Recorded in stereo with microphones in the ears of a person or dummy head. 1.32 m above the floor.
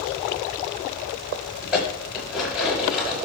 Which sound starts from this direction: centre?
Dishes clattering, at 1.6 s.